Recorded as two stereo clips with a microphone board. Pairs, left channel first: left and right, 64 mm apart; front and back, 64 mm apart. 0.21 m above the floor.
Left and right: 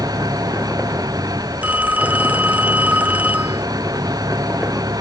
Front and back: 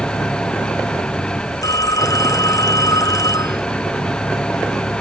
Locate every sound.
0.0 s an engine running: 75° right
1.6 s a phone ringing: 20° right